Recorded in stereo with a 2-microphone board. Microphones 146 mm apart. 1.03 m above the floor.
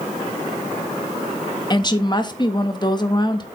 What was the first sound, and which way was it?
A woman speaking, 30° left (ahead or behind).